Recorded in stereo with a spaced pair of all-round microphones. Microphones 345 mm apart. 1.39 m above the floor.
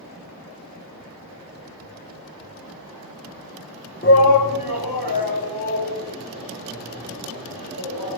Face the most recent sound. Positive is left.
turn(degrees=75)  # may be behind; listen again after turning